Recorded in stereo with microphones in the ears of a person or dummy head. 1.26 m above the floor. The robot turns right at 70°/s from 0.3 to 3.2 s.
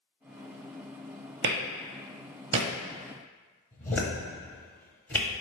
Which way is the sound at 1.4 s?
60° right (ahead or behind).